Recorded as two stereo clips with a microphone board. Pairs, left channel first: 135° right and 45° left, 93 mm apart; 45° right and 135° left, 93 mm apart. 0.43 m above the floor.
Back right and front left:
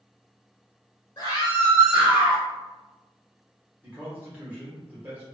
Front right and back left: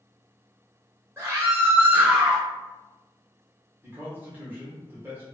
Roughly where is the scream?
Behind.